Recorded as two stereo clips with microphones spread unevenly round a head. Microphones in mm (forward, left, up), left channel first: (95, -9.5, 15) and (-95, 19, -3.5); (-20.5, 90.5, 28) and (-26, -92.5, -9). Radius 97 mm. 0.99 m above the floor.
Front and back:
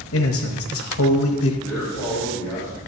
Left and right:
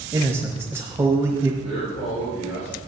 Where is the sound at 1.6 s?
55° left, 5 m.